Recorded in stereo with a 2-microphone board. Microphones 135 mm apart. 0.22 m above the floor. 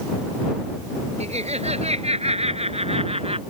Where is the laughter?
55° right (ahead or behind); by 3.4 s 50° right (ahead or behind).